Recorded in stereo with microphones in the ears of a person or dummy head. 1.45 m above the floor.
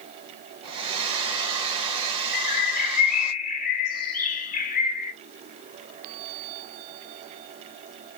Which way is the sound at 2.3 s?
40° left (ahead or behind).